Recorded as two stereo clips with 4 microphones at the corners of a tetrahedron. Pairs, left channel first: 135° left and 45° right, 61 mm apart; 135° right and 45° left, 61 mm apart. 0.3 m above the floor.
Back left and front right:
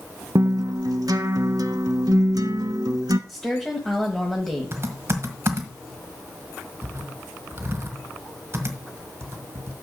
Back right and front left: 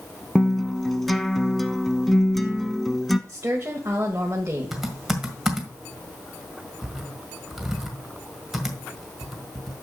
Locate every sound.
0.3 s a guitar: 50° right, 0.7 m
3.3 s a woman speaking: 55° left, 1.3 m
4.7 s typing on a keyboard: 40° right, 1.6 m